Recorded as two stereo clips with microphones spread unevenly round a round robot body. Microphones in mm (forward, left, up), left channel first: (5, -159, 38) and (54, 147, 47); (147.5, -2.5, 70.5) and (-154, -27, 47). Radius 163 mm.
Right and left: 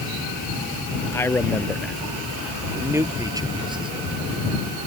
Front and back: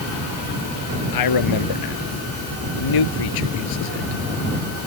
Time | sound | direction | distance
1.1 | a man speaking | 15° right | ?